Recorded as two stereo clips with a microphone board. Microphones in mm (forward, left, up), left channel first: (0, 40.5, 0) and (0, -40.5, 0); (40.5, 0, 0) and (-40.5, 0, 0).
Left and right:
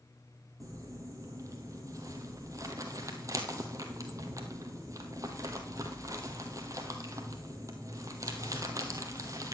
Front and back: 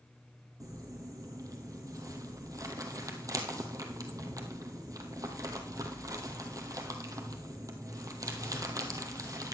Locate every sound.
0.6 s crumpling: 140° right, 1.4 m